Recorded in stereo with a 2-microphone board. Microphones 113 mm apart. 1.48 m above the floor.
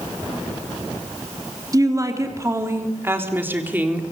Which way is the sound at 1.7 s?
30° right (ahead or behind).